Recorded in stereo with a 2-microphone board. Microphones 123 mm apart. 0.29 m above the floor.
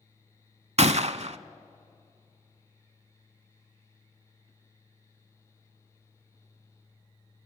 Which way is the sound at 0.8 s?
60° right (ahead or behind).